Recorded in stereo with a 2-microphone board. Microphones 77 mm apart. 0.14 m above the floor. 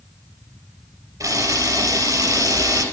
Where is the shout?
No shout in this recording.